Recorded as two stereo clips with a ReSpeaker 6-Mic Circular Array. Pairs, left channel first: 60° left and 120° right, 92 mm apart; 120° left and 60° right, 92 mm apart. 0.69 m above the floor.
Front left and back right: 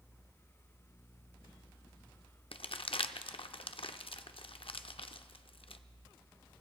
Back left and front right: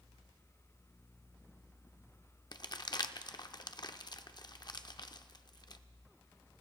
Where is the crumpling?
80° left, 0.5 m.